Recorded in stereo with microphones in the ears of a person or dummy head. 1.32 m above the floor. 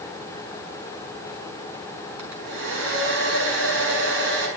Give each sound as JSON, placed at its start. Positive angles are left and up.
{"t": 2.2, "sound": "a hair dryer", "side_deg": -80, "distance_m": 6.0}